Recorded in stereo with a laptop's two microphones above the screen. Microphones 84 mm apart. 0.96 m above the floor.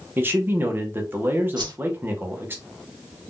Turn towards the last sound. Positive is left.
turn(degrees=-60)  # may be behind; listen again after turning